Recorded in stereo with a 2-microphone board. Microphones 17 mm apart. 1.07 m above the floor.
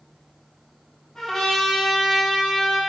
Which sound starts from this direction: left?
A trumpet, at 1.1 s.